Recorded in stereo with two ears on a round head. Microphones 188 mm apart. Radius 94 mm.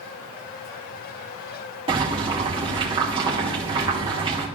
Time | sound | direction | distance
1.9 | boiling | 25° right (ahead or behind) | 2.0 m